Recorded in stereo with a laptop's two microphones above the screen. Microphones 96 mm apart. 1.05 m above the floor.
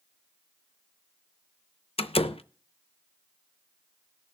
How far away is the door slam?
About 0.6 m.